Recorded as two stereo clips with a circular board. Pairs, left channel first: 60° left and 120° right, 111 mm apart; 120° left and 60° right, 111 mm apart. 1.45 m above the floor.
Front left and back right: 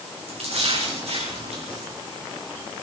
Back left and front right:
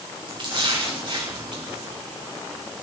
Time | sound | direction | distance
0.3 | a splash | 100° right | 4.5 m